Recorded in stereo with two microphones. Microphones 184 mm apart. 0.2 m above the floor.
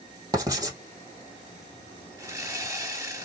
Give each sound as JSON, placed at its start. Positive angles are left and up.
{"t": 0.3, "sound": "writing", "side_deg": -20, "distance_m": 2.0}
{"t": 2.2, "sound": "sawing", "side_deg": -15, "distance_m": 2.5}